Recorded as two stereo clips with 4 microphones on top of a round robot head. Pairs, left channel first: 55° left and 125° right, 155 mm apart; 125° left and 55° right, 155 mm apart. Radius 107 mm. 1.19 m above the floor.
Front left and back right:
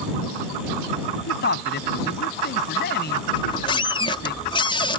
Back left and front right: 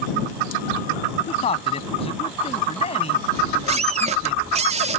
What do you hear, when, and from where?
1.3 s a man speaking: 70° left
3.3 s a squeak: 5° right